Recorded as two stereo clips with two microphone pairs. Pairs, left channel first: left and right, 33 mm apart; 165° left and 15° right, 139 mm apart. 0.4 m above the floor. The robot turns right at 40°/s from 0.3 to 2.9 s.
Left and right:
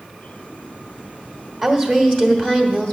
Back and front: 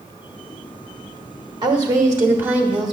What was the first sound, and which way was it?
A woman speaking, 15° left.